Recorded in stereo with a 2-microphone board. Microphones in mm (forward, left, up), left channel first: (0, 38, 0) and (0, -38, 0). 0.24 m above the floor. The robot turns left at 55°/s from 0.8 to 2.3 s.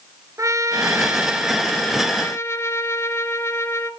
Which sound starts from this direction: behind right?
A trumpet, at 0.4 s.